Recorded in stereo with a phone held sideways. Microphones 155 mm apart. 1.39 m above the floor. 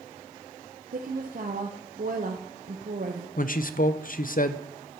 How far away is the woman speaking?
About 0.8 m.